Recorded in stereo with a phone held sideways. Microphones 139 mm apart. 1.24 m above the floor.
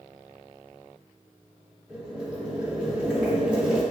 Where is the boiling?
5° right (ahead or behind), 1.5 m.